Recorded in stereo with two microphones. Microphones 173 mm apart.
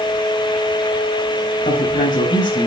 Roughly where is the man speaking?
Left.